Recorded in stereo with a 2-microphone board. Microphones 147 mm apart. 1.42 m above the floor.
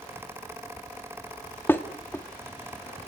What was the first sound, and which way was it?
Dishes clattering, 15° left (ahead or behind).